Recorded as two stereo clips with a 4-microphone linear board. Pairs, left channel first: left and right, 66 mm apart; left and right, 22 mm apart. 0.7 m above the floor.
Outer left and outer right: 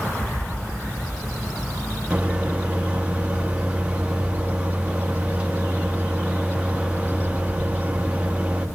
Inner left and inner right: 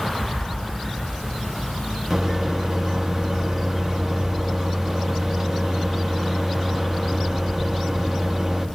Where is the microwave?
15° right (ahead or behind), 0.8 m.